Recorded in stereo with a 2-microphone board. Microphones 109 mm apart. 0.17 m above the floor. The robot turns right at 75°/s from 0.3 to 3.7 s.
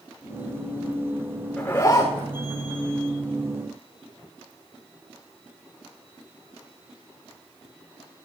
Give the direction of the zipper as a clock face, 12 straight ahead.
12 o'clock.